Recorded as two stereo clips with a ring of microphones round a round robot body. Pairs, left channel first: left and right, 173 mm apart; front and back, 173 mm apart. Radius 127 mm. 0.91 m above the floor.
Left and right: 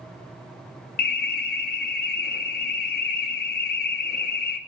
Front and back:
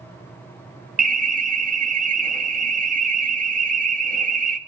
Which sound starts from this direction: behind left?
An alarm, at 1.0 s.